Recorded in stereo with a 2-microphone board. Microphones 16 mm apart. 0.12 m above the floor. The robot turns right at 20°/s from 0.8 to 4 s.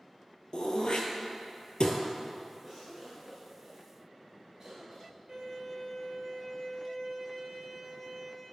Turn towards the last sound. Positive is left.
turn(degrees=-35)  # may be behind; listen again after turning